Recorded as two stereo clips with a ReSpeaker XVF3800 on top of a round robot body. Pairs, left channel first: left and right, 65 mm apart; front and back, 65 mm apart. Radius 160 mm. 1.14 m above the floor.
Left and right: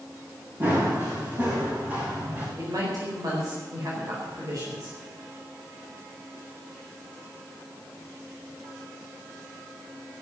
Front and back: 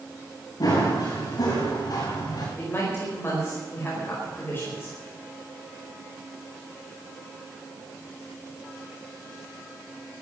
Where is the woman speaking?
55° right, 4.5 m.